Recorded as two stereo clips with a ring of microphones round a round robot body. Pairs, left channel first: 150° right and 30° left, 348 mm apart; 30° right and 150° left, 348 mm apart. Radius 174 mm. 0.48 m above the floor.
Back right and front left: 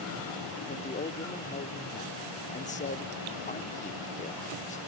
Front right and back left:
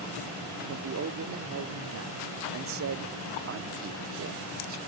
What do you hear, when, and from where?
0.7 s a man speaking: 155° left, 0.9 m